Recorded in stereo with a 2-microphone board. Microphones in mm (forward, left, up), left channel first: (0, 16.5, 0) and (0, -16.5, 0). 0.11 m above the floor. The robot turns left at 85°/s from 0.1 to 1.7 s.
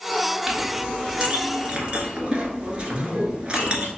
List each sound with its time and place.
0.5 s a clink: 10° right (ahead or behind), 1.2 m; by 3.9 s 30° right (ahead or behind), 1.2 m
2.9 s a man speaking: 55° right (ahead or behind), 2.0 m